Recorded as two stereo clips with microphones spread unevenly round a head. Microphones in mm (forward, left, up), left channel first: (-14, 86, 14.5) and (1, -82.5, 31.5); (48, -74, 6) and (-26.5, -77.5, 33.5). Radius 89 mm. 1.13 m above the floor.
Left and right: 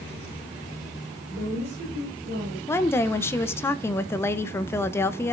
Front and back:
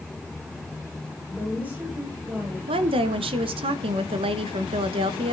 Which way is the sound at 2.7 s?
170° left.